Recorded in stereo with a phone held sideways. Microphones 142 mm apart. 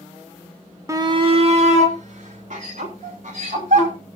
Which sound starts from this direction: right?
A shout, at 0.9 s.